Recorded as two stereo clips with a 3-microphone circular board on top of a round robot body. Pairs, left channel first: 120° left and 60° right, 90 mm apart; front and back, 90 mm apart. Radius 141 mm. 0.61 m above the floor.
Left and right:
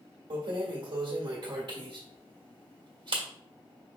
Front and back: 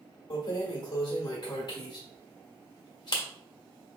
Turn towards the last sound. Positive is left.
turn(degrees=-35)